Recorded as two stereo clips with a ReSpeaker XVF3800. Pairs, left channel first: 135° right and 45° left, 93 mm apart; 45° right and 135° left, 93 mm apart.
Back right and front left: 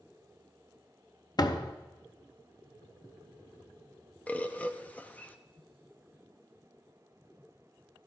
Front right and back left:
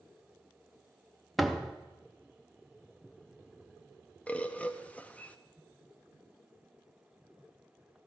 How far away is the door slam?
About 0.7 m.